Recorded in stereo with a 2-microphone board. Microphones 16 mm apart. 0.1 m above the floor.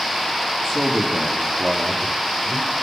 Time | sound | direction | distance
0.6 | a man speaking | 45° right (ahead or behind) | 3.5 m